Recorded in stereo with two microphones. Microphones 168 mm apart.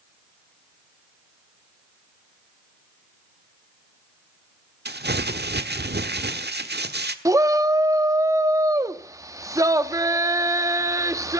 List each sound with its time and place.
4.8 s crumpling: 85° right, 1.2 m
7.2 s a shout: 20° right (ahead or behind), 1.1 m